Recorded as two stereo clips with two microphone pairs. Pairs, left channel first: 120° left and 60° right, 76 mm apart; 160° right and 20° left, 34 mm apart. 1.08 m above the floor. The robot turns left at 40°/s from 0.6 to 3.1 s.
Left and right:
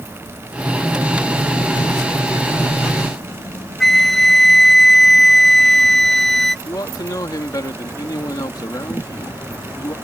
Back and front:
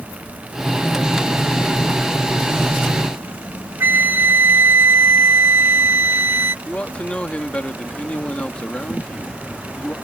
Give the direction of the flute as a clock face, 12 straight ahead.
11 o'clock.